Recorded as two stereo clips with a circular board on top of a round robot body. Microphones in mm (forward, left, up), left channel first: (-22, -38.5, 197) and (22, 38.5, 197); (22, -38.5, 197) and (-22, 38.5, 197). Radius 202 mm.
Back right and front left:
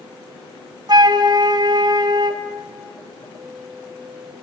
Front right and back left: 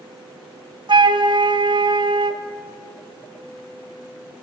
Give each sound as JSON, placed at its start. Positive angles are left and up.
{"t": 0.9, "sound": "a flute", "azimuth_deg": 95, "distance_m": 1.1}